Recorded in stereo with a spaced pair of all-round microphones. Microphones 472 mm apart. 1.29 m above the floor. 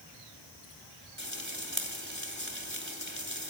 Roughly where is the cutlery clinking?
No cutlery clinking in this recording.